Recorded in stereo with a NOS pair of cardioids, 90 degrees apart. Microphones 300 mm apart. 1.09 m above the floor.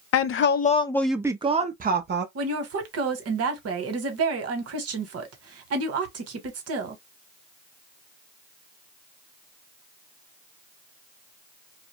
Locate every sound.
0.1 s a woman speaking: 55° left, 0.6 m; by 2.2 s 35° right, 1.0 m
2.4 s a woman speaking: 55° right, 1.2 m